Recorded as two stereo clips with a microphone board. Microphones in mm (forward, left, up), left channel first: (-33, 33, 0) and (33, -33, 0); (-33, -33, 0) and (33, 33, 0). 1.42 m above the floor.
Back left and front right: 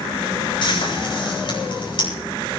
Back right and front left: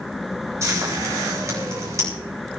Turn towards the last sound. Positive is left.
turn(degrees=105)